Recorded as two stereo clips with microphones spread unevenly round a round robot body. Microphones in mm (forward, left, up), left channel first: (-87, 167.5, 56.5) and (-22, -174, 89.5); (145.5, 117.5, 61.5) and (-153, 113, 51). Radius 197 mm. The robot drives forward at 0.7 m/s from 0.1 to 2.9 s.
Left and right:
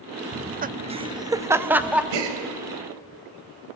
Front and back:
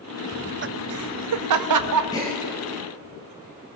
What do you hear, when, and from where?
0.3 s laughter: 125° right, 0.6 m; by 2.0 s 170° right, 1.5 m
2.1 s a gasp: 80° right, 3.5 m